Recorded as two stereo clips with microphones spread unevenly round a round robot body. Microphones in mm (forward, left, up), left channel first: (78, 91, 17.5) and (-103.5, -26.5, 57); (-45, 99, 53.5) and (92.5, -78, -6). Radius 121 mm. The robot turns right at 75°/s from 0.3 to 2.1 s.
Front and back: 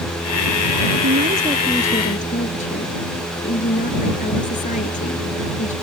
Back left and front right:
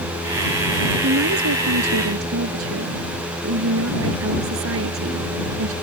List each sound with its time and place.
1.0 s a woman speaking: 105° right; by 5.7 s 25° right